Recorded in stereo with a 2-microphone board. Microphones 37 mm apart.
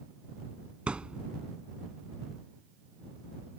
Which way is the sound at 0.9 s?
30° right (ahead or behind).